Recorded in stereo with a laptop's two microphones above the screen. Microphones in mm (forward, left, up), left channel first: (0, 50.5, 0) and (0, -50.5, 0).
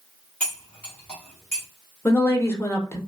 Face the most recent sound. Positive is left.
turn(degrees=25)  # may be behind; listen again after turning